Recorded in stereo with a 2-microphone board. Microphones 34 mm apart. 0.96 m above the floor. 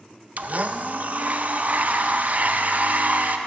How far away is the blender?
About 0.6 m.